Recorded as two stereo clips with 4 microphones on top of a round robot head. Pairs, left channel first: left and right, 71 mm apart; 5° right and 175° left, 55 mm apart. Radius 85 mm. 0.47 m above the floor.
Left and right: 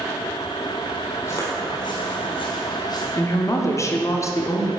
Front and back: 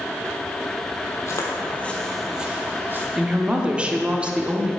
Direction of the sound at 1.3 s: 30° left.